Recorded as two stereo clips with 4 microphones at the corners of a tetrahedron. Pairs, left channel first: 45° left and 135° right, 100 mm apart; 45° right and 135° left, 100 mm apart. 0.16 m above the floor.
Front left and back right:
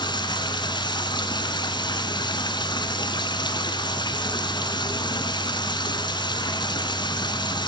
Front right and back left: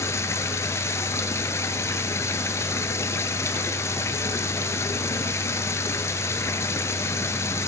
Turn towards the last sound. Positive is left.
turn(degrees=10)